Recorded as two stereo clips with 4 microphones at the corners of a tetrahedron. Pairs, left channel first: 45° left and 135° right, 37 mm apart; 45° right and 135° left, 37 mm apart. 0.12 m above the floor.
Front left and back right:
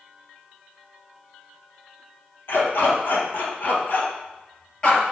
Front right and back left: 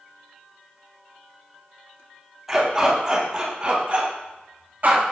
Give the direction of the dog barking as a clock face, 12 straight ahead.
10 o'clock.